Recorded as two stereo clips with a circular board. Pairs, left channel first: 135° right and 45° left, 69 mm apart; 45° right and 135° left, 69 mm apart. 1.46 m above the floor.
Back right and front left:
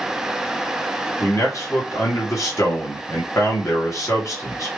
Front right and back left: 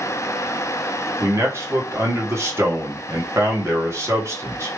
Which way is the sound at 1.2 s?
175° right.